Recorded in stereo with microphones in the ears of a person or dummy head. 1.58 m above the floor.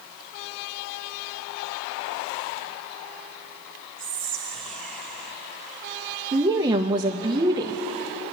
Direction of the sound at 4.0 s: 5° left (ahead or behind).